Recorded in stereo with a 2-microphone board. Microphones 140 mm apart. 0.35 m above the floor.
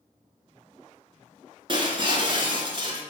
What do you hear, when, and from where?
1.7 s breaking glass: 40° right (ahead or behind), 0.8 m